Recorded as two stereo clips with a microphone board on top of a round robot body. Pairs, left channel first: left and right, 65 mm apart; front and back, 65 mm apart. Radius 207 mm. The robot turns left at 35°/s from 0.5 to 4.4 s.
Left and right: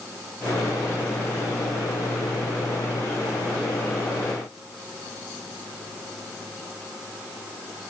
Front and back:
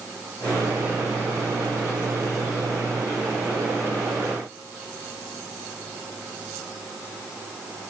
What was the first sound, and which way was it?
Only background noise.